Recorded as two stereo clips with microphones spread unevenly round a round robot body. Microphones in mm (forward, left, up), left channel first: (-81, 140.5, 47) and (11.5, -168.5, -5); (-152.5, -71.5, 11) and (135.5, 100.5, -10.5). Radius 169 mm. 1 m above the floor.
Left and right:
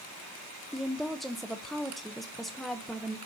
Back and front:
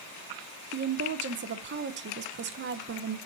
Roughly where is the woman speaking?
Ahead.